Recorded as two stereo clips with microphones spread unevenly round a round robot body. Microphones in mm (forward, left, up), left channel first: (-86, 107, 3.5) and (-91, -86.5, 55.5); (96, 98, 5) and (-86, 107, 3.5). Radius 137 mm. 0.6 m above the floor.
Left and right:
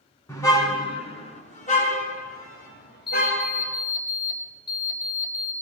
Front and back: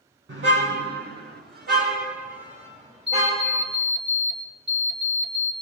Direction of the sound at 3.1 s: 155° left.